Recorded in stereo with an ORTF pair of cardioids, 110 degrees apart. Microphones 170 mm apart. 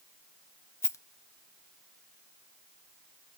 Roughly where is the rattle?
Ahead.